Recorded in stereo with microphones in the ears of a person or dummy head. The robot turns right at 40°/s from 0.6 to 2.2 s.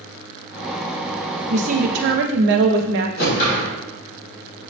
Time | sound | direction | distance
1.5 | a woman speaking | 40° right (ahead or behind) | 0.6 m
3.2 | a whoosh | 50° left (ahead or behind) | 1.2 m